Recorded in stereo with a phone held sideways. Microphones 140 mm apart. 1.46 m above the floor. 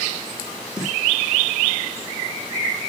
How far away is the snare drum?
About 6.5 m.